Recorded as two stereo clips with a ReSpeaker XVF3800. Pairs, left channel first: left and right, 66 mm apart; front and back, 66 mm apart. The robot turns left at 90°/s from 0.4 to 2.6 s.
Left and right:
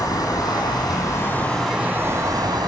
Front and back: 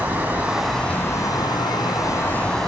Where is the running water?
120° left, 1.5 m; by 2.7 s 80° right, 1.5 m.